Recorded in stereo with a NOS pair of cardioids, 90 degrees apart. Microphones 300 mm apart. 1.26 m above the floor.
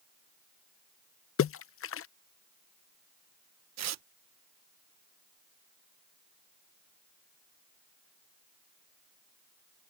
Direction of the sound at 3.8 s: 55° right.